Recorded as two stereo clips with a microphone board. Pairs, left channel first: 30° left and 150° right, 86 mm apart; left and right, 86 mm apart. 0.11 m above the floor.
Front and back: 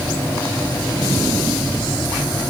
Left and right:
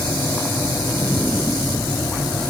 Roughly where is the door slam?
I don't hear a door slam.